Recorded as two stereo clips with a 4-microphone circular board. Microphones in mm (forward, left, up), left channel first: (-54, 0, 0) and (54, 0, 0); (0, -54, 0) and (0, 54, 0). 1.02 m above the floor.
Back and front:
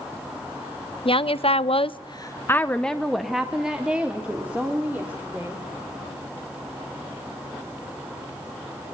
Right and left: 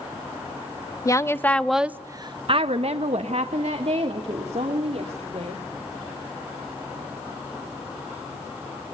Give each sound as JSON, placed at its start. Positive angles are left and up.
{"t": 1.1, "sound": "a woman speaking", "azimuth_deg": -150, "distance_m": 1.0}